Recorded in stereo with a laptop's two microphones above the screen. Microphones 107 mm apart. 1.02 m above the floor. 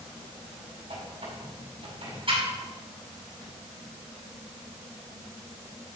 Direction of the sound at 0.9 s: 55° right (ahead or behind).